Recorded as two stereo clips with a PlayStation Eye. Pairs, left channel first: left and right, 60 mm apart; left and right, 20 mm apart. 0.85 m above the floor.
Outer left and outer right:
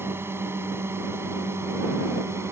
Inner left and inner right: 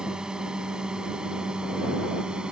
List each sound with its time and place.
0.0 s a drone: 40° right (ahead or behind); by 2.5 s 45° right (ahead or behind)